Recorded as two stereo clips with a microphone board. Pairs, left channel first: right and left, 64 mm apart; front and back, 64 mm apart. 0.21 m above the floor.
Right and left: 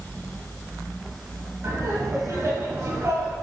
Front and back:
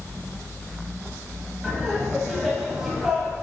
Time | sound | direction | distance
1.6 | laughter | 105° left | 1.9 m